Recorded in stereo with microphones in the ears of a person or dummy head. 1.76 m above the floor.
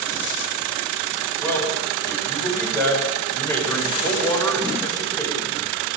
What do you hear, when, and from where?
1.4 s a man speaking: 15° left (ahead or behind), 9 m